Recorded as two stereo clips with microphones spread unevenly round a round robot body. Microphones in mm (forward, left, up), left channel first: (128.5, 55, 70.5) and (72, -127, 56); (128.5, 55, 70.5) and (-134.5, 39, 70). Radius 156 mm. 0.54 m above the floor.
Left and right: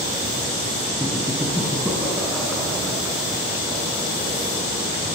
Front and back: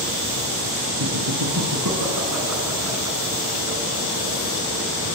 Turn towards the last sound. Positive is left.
turn(degrees=165)